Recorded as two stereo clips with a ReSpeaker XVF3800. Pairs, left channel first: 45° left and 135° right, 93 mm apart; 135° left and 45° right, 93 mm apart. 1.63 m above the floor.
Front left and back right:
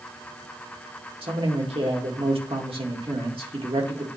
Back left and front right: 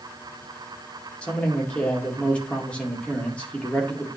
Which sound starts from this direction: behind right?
A man speaking, at 1.2 s.